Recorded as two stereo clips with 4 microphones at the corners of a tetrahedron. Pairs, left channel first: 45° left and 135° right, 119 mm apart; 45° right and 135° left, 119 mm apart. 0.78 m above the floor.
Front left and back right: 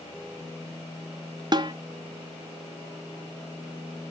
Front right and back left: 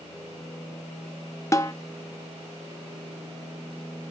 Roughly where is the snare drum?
Right.